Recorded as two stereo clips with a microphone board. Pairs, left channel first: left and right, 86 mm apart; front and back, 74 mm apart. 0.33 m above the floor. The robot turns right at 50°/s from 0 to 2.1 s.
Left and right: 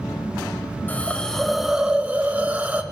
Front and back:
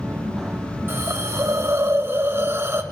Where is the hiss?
145° left, 1.2 m; by 2.8 s 155° right, 1.2 m.